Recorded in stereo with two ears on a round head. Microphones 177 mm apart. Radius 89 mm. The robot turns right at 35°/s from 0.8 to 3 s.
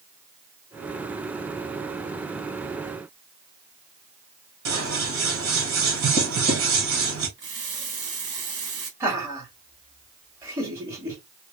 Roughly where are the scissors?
Right.